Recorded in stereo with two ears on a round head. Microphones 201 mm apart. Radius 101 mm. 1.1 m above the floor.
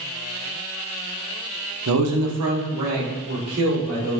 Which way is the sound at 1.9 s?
70° right (ahead or behind).